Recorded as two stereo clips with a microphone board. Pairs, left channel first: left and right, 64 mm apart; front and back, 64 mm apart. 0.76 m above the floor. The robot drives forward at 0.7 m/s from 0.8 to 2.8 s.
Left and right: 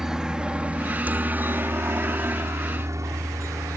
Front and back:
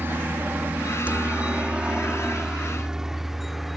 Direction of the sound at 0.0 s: 165° right.